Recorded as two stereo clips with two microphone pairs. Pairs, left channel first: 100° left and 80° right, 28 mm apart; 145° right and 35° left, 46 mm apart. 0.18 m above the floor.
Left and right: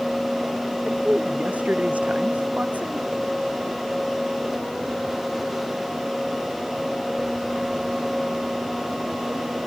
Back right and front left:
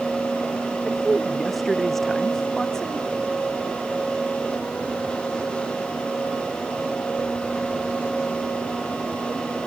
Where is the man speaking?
55° right; by 3.1 s 70° right.